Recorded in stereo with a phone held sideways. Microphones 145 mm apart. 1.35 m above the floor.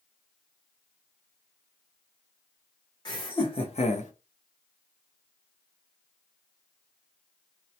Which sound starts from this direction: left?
Laughter, at 3.0 s.